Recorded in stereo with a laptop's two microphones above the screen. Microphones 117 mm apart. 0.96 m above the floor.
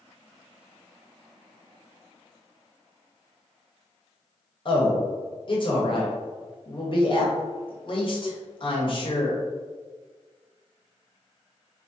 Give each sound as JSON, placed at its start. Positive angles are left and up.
{"t": 4.7, "sound": "a man speaking", "side_deg": 45, "distance_m": 1.0}